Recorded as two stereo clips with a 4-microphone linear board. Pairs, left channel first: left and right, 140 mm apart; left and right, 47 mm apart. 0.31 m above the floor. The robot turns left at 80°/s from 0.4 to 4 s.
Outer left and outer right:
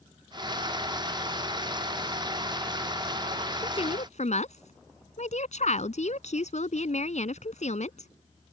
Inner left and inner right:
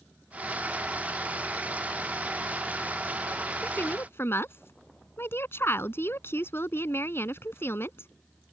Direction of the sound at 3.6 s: 150° left.